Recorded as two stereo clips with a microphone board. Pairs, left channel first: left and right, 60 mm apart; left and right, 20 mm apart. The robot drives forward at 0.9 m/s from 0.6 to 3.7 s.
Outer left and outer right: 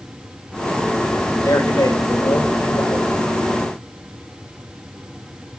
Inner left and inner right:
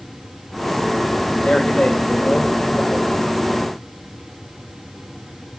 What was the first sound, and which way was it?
A man speaking, 70° left (ahead or behind).